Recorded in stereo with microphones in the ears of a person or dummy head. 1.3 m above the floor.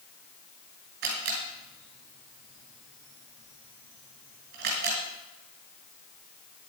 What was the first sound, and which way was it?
A camera shutter, 55° right (ahead or behind).